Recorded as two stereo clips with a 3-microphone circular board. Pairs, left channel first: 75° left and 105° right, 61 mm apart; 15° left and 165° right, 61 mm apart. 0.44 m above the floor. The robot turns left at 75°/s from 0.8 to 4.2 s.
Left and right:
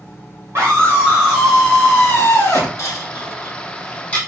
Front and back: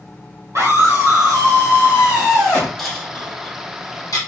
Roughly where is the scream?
Behind right.